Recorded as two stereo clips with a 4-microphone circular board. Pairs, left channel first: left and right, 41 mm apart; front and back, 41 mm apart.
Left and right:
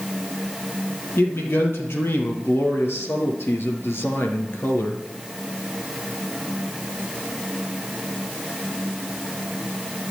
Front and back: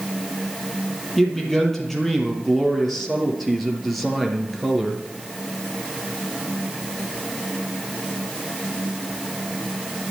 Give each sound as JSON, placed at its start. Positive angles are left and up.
{"t": 1.2, "sound": "a man speaking", "azimuth_deg": 80, "distance_m": 5.0}